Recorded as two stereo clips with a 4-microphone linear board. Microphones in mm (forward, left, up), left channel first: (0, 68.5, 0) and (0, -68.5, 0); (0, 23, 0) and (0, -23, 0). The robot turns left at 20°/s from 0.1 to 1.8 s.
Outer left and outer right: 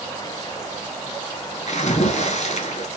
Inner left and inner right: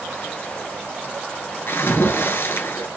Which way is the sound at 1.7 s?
60° left (ahead or behind).